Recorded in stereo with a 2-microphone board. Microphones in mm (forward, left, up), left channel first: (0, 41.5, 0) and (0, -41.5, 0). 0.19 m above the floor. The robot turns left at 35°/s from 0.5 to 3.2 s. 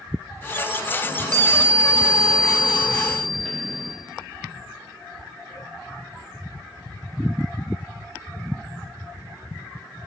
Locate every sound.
1.0 s a chime: 115° right, 2.5 m; by 4.0 s 170° left, 2.5 m